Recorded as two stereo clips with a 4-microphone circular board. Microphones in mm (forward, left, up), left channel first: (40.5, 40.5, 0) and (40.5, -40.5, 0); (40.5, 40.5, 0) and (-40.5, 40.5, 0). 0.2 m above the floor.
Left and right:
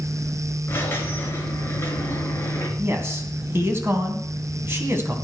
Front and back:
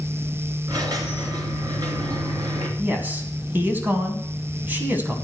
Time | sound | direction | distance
0.7 | a squeak | 145° left | 2 m
2.8 | a man speaking | 130° right | 2 m